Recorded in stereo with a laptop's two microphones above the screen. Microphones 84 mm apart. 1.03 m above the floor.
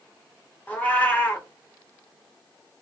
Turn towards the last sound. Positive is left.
turn(degrees=20)  # may be behind; listen again after turning